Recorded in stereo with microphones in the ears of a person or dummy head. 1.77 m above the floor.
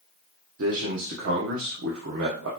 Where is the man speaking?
70° right (ahead or behind), 0.8 m.